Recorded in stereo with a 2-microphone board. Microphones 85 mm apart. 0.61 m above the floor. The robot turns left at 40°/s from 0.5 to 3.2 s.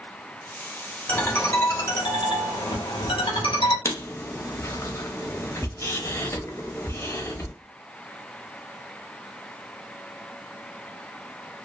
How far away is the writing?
About 0.6 m.